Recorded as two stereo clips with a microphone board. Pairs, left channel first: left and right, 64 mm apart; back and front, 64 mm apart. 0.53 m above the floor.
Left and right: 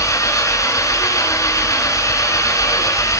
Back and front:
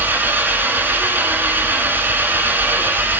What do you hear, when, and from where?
0.0 s an engine running: 60° left, 1.7 m